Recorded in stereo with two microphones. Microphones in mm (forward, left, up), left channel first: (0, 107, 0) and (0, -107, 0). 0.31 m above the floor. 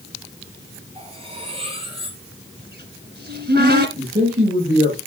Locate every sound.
0.9 s cutlery clinking: 25° right (ahead or behind), 3.5 m
2.6 s a cupboard door: 50° right (ahead or behind), 1.4 m
4.0 s a man speaking: 45° right (ahead or behind), 7.5 m